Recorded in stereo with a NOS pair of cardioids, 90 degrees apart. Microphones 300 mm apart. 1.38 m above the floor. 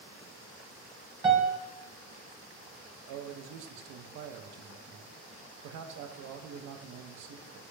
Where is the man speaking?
65° right, 0.5 m.